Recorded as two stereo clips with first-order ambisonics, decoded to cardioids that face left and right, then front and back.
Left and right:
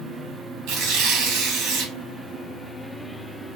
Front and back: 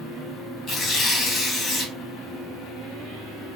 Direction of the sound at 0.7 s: 55° right.